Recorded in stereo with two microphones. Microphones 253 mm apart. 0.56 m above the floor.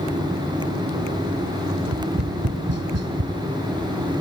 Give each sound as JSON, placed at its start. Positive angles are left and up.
{"t": 1.8, "sound": "tapping", "side_deg": -80, "distance_m": 0.8}